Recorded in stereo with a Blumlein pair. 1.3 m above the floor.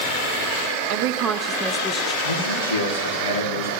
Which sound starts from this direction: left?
A man speaking, at 2.2 s.